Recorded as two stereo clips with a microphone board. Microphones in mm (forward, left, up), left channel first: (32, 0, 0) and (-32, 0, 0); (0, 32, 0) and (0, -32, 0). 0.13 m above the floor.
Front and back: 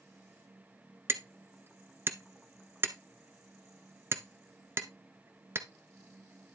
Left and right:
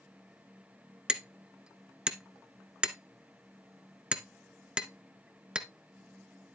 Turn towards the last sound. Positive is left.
turn(degrees=-160)